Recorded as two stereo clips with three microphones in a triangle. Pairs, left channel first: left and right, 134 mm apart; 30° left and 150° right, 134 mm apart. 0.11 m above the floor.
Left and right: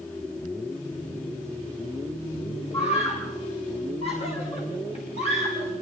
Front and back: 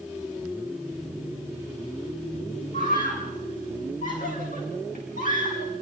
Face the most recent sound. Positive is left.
turn(degrees=50)